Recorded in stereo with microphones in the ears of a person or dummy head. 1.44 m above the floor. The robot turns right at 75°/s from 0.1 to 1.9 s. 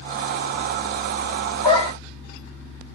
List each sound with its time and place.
1.6 s a dog barking: 20° left (ahead or behind), 1.5 m; by 1.9 s 35° left (ahead or behind), 1.5 m